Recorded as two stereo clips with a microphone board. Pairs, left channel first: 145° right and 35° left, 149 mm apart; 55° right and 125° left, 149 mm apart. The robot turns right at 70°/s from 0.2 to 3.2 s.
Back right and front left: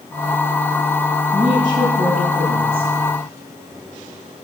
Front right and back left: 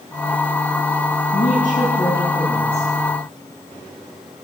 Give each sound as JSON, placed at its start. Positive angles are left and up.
{"t": 1.3, "sound": "a woman speaking", "azimuth_deg": -50, "distance_m": 8.0}